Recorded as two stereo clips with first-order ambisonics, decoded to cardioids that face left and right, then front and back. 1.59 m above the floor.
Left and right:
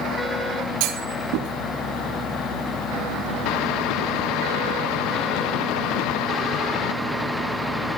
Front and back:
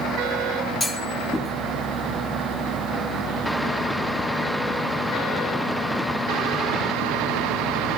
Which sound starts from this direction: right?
A clunk, at 0.8 s.